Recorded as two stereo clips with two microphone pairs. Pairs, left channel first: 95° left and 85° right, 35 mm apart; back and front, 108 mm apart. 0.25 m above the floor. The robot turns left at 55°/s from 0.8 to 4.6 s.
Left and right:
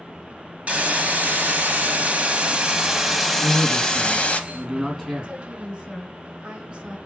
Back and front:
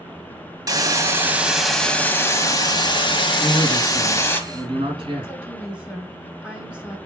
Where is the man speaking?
85° left, 2 m; by 5.3 s 20° left, 2 m.